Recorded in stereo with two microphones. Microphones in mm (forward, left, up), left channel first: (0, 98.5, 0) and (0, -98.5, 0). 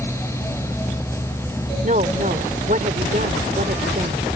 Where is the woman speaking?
45° right (ahead or behind).